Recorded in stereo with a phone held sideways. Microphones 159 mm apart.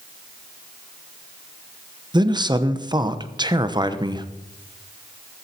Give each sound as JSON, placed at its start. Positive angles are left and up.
{"t": 2.1, "sound": "a man speaking", "side_deg": -25, "distance_m": 1.0}